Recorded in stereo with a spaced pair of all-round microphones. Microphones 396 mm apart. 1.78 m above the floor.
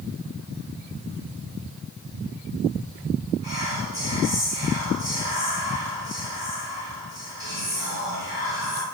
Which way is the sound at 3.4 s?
10° right (ahead or behind).